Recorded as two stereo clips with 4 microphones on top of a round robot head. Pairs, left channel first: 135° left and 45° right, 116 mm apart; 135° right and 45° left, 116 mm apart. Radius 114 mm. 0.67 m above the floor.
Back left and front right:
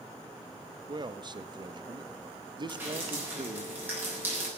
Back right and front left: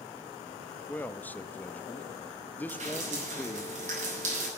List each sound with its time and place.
0.9 s a man speaking: 65° right, 1.0 m
2.7 s dripping: 30° left, 7.5 m